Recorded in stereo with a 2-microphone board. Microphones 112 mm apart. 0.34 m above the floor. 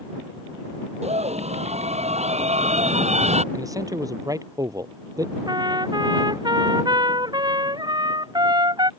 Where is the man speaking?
30° right (ahead or behind).